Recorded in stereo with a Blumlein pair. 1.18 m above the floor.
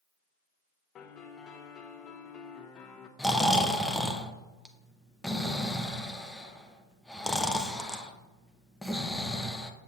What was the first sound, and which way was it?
A piano, 25° left.